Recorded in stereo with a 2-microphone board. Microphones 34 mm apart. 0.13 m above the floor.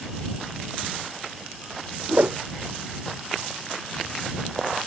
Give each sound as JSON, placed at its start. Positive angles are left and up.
{"t": 2.1, "sound": "a whoosh", "side_deg": -55}